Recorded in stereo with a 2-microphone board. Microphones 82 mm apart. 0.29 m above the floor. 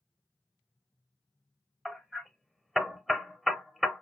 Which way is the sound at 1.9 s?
Centre (ahead or behind).